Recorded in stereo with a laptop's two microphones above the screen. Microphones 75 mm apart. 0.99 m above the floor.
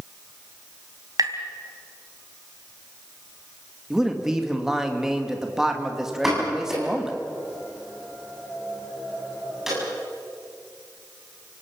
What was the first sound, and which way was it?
Tapping, 55° right (ahead or behind).